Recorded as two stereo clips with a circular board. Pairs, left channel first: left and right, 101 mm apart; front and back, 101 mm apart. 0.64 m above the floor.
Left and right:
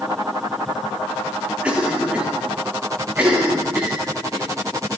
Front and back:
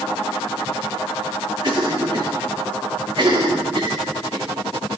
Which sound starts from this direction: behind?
A cough, at 1.6 s.